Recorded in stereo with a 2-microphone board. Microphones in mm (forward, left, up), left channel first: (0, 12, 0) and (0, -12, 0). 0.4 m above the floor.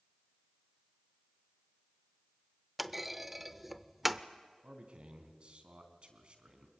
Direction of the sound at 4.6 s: 50° right (ahead or behind).